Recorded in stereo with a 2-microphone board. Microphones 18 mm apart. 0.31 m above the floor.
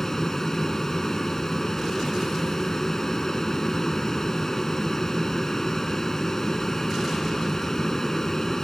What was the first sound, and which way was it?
An aircraft, 25° left (ahead or behind).